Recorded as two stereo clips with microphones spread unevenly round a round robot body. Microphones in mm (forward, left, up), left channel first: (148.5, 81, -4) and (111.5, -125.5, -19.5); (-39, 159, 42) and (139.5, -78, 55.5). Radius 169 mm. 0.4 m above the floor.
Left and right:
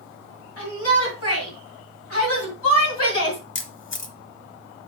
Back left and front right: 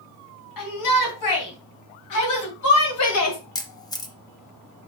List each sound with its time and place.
0.6 s a shout: 130° left, 3.5 m; by 3.4 s 105° left, 2 m
3.5 s a camera shutter: 50° left, 1.1 m